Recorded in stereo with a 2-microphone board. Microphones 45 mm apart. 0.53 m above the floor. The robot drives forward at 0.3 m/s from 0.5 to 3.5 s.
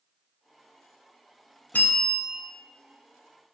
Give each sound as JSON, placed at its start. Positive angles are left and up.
{"t": 1.7, "sound": "a bell", "side_deg": 40, "distance_m": 0.6}